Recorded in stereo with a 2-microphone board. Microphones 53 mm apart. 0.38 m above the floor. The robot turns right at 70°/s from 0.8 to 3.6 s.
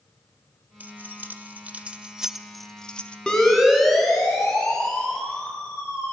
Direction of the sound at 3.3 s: 15° left (ahead or behind).